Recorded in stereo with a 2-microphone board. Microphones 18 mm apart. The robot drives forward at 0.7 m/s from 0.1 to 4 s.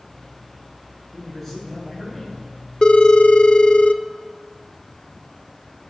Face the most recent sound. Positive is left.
turn(degrees=50)  # may be behind; listen again after turning